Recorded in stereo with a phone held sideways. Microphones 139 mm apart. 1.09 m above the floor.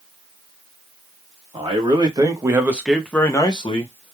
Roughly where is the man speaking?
Right.